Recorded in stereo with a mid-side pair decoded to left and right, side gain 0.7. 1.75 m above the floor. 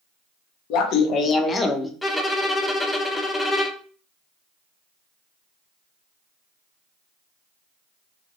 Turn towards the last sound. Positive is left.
turn(degrees=10)